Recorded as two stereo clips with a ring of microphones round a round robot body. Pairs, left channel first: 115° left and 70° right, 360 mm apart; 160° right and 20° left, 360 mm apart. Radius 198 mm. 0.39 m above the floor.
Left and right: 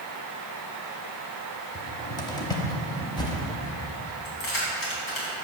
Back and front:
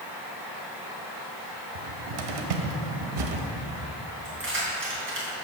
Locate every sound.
1.8 s a cupboard door: 35° left, 1.0 m
4.2 s keys jangling: 80° left, 3 m